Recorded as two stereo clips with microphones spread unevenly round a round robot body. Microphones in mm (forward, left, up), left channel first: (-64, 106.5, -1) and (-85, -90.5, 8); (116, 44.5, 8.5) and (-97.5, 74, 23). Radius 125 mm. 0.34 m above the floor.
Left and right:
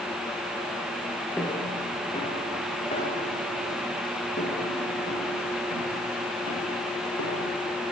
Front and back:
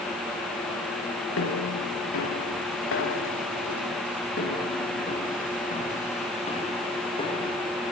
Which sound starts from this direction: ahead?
Footsteps, at 1.4 s.